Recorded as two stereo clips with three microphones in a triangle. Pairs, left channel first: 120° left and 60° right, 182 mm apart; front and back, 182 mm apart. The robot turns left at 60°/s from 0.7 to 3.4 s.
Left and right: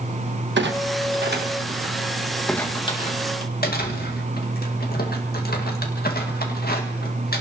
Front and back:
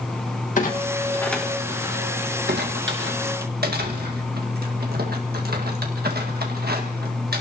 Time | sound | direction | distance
0.6 | a clunk | 45° right | 1.4 m